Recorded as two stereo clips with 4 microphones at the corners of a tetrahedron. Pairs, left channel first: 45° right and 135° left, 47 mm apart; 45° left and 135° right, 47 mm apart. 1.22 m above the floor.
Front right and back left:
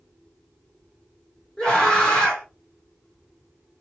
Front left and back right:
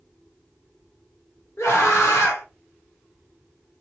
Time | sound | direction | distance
1.6 | a scream | 25° left | 1.7 m